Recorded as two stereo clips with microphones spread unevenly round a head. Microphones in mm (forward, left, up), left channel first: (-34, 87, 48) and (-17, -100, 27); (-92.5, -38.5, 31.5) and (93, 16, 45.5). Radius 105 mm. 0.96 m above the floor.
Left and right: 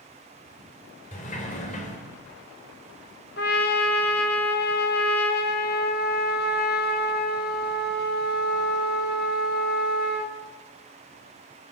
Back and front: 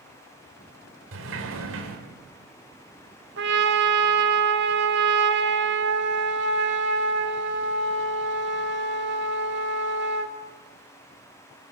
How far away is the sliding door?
About 4 m.